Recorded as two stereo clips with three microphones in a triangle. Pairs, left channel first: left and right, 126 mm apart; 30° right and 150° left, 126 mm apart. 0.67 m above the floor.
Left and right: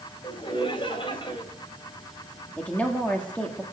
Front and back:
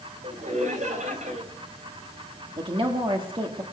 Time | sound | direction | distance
0.2 | laughter | 135° left | 2.5 m
2.6 | a woman speaking | 165° left | 1.5 m